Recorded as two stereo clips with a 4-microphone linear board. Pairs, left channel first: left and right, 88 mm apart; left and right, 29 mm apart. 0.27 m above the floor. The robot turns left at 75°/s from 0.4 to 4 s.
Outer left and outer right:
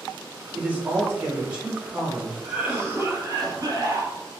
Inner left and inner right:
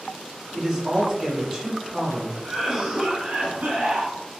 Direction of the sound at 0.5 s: 20° right (ahead or behind).